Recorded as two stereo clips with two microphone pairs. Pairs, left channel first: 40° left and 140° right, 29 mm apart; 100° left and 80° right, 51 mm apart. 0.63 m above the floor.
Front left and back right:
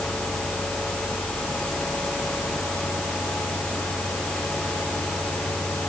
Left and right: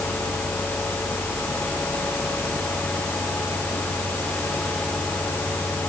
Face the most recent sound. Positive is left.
No sound to turn to.